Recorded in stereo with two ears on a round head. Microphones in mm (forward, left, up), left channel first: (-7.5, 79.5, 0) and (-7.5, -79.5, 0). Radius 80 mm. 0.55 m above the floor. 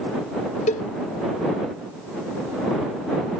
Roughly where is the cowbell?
Left.